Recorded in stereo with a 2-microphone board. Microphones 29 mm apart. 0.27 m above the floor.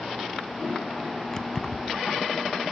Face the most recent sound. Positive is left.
turn(degrees=25)  # may be behind; listen again after turning